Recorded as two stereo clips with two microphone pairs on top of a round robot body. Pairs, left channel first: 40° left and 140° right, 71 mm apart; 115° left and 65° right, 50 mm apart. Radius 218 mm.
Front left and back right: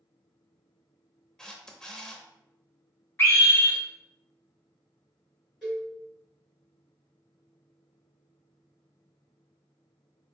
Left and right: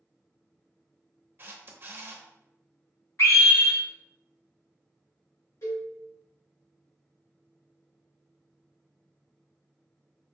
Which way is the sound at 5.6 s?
135° left.